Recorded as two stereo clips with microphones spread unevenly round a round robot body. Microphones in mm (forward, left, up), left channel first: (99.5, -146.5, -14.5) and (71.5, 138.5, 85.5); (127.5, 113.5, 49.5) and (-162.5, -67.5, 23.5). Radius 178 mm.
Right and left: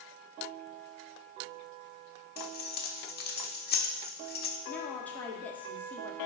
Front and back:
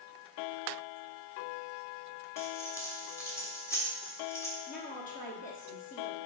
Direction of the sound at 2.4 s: 50° right.